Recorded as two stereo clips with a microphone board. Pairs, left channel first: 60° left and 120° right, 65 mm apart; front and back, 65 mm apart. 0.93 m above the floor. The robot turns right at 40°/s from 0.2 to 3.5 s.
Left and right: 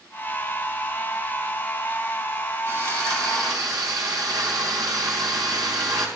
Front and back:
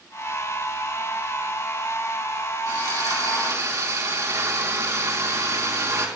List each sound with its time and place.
2.7 s sawing: 170° right, 4 m; by 6.1 s 135° right, 4 m